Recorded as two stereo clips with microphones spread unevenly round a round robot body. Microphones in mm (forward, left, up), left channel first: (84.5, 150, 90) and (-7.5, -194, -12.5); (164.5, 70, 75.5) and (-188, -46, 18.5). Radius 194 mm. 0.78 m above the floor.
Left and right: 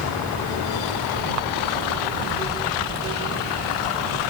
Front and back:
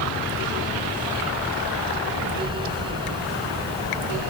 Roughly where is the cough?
No cough in this recording.